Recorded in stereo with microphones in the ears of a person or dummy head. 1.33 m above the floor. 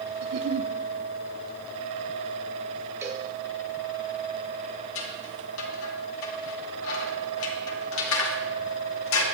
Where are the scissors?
80° left, 2.5 m.